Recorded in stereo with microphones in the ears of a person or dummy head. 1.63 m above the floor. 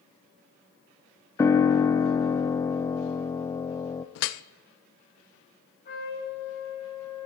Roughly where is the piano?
Centre.